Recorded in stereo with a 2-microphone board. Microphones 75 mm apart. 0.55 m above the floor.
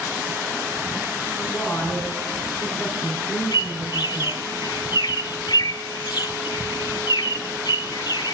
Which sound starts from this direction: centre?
A woman speaking, at 1.4 s.